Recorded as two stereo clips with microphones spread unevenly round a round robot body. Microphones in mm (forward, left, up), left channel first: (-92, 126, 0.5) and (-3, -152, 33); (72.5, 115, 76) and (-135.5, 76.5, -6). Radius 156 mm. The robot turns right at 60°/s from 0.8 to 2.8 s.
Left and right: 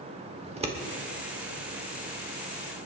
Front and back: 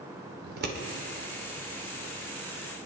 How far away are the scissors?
About 1.7 m.